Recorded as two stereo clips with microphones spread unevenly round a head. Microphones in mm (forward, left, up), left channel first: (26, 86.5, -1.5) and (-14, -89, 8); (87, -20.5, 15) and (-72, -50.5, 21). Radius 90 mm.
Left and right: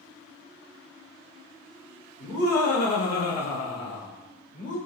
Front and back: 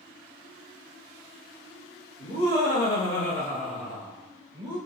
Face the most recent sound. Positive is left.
turn(degrees=130)